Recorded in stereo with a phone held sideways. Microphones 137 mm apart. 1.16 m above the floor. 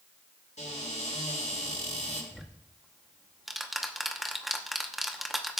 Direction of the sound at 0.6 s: 70° left (ahead or behind).